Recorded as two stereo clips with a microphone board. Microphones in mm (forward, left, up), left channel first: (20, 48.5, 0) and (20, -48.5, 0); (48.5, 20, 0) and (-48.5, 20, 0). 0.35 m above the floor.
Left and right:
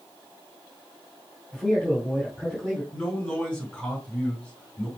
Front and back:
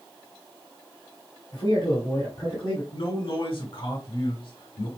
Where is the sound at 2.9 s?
10° left, 3 m.